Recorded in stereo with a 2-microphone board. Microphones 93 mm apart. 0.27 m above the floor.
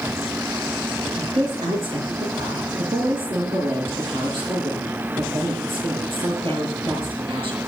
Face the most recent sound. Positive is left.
turn(degrees=-65)  # may be behind; listen again after turning